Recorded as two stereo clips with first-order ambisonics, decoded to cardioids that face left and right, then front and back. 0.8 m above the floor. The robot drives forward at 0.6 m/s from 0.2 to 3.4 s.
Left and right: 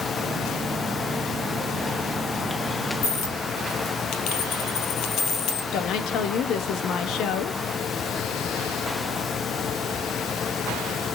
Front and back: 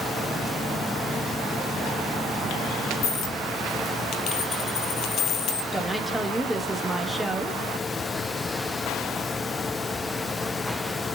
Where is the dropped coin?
45° left, 2.5 m.